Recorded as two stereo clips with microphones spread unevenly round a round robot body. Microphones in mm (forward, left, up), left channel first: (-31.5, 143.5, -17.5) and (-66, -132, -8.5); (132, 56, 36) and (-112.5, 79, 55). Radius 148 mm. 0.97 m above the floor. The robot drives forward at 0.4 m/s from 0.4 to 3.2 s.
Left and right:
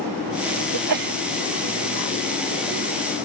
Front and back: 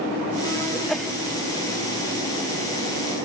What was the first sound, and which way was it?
A sneeze, 95° right.